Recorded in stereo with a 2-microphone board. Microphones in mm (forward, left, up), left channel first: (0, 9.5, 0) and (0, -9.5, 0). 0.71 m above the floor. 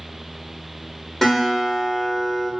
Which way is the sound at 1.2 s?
20° left (ahead or behind).